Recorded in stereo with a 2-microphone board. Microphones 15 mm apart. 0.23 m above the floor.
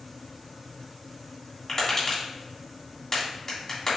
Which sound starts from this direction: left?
Tapping, at 1.7 s.